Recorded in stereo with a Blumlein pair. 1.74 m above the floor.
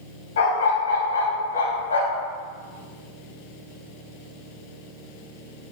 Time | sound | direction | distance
0.4 | a dog barking | 60° left | 4.5 m